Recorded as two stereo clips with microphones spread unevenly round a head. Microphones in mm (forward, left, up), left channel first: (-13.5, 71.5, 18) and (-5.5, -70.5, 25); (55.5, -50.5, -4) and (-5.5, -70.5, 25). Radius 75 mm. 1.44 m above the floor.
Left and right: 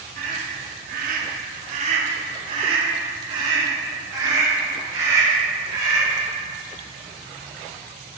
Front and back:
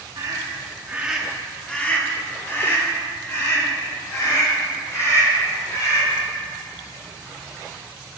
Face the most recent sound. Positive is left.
turn(degrees=-15)